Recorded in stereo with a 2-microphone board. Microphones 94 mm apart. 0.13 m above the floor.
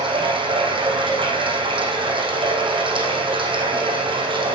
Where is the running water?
60° right (ahead or behind), 3.5 m.